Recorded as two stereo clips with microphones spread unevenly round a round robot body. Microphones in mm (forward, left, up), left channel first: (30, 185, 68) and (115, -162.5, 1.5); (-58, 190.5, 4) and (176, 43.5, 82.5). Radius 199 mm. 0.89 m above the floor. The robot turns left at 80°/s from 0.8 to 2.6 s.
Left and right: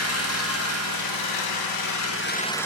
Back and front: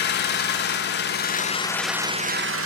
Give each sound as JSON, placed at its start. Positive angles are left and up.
{"t": 0.0, "sound": "an engine running", "azimuth_deg": 155, "distance_m": 0.9}